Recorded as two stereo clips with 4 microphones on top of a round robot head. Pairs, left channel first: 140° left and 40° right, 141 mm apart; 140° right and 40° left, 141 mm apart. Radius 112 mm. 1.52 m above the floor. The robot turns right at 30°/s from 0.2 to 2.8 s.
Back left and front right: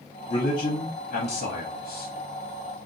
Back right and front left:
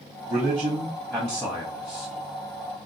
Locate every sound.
0.3 s a man speaking: 105° left, 1.1 m; by 2.1 s 160° left, 1.1 m